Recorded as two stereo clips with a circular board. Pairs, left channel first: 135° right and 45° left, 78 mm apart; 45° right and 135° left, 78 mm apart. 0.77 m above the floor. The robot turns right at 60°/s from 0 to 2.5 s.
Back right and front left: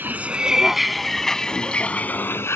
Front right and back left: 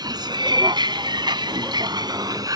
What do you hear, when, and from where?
0.0 s a vehicle: 110° left; by 2.6 s 165° left